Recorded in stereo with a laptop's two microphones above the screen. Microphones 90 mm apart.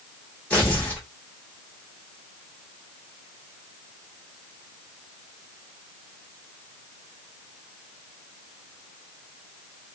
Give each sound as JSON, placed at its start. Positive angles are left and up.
{"t": 0.5, "sound": "tearing paper", "side_deg": 10, "distance_m": 1.2}